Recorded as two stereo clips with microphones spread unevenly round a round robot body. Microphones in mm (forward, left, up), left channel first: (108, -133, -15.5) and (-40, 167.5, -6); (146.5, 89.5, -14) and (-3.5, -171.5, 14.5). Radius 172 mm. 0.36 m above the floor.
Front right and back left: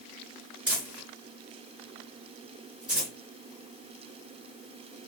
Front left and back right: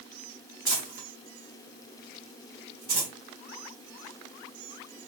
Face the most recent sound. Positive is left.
turn(degrees=-160)